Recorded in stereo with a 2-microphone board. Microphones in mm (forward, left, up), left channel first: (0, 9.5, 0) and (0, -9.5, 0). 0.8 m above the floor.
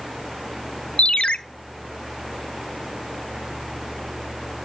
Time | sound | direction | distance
1.0 | a ringtone | 70° left (ahead or behind) | 0.6 m